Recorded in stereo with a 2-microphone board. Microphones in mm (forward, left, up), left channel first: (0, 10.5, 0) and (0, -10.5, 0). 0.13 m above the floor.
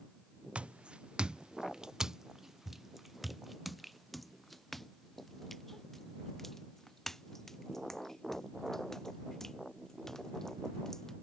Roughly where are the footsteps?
Right.